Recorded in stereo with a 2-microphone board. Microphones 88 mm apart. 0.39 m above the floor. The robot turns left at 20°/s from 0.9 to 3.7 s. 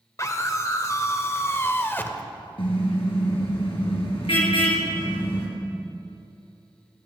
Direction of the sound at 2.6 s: 75° left (ahead or behind).